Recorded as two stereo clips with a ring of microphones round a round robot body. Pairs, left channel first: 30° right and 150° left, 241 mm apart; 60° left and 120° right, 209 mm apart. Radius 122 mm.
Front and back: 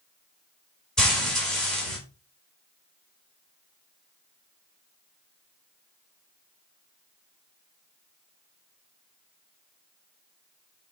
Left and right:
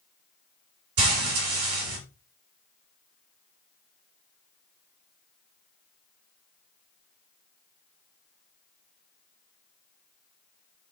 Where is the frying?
120° right, 3 m.